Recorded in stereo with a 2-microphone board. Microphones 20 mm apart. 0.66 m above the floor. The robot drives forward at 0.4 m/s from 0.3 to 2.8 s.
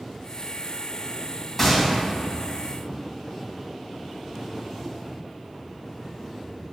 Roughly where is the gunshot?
Centre.